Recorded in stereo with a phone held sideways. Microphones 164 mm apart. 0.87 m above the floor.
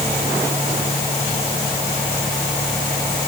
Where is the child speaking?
I don't hear a child speaking.